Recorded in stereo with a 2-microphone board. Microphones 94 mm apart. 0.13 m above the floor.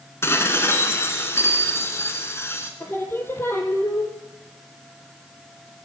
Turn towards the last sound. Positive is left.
turn(degrees=25)  # may be behind; listen again after turning